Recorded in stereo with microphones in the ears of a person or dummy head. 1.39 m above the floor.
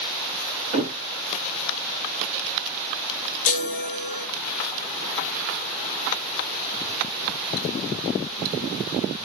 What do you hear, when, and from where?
0.7 s a thud: 25° right (ahead or behind), 1.9 m
3.5 s a chime: 45° left (ahead or behind), 1.7 m